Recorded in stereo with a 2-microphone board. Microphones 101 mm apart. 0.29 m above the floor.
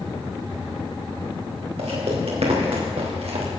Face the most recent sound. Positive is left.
turn(degrees=-80)